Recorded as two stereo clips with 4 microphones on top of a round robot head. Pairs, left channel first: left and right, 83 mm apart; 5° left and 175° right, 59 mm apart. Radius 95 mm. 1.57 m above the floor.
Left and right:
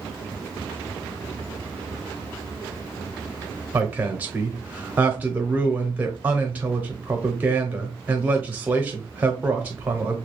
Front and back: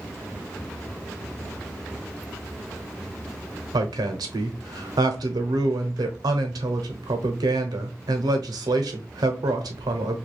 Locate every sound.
3.7 s a woman speaking: 165° right, 0.6 m